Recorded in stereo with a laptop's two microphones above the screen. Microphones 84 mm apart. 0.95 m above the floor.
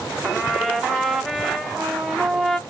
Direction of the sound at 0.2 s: 5° right (ahead or behind).